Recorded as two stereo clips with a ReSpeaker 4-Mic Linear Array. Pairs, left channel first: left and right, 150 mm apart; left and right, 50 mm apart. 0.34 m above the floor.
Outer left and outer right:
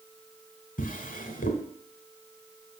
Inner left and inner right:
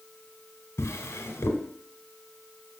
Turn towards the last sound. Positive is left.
turn(degrees=65)  # may be behind; listen again after turning